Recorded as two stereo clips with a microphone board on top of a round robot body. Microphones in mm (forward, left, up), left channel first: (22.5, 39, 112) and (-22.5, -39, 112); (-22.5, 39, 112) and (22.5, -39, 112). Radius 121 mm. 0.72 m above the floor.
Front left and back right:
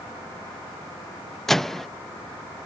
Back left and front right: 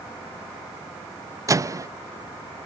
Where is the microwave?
25° right.